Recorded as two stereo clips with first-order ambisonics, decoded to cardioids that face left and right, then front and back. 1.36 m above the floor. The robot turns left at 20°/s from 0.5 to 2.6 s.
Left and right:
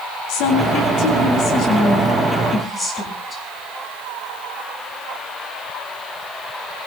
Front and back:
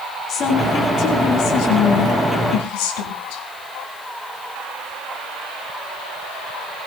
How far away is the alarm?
No alarm in this recording.